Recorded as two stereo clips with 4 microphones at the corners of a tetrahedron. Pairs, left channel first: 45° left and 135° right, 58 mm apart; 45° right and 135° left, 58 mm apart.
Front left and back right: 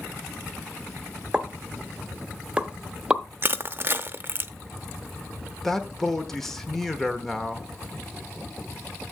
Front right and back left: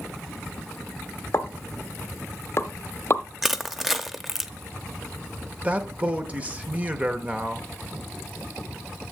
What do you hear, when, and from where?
1.3 s a pop: 65° right, 0.8 m
3.4 s crushing: 140° right, 0.6 m
5.6 s a man speaking: 120° left, 0.9 m